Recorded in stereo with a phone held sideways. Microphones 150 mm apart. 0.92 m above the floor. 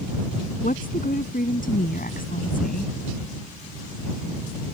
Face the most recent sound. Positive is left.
turn(degrees=85)